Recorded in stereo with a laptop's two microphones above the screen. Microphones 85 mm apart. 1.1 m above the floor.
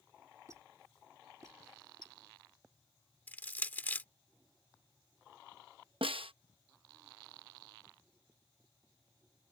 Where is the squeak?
35° right (ahead or behind).